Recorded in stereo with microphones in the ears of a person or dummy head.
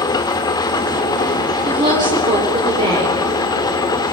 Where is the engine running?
20° left (ahead or behind), 1.5 m.